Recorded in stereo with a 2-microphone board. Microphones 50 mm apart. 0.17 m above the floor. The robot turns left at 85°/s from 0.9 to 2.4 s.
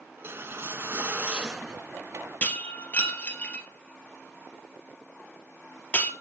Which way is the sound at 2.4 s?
30° left (ahead or behind).